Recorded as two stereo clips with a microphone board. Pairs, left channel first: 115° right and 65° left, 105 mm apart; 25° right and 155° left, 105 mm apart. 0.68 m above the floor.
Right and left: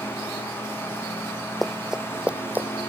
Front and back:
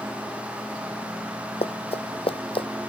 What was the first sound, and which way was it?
Running footsteps, 25° right.